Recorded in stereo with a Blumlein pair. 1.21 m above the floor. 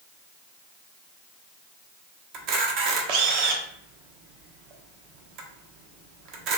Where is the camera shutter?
35° right, 0.6 m.